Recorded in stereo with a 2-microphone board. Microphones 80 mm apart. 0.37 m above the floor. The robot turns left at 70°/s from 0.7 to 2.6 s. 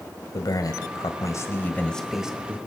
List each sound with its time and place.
0.3 s a man speaking: 100° left, 1.6 m; by 2.6 s 30° right, 1.6 m